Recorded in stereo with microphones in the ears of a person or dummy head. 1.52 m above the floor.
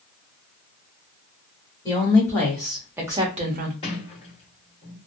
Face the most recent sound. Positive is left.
turn(degrees=30)  # may be behind; listen again after turning